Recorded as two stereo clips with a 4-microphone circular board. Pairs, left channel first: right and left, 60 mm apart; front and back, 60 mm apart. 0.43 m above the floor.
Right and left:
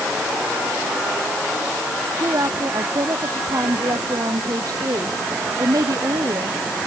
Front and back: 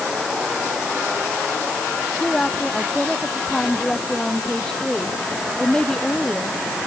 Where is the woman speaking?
80° left; by 6.6 s 75° left.